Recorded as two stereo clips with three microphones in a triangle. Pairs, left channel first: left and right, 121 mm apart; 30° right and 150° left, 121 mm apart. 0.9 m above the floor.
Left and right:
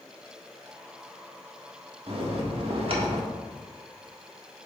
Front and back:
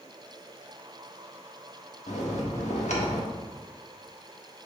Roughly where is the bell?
Ahead right.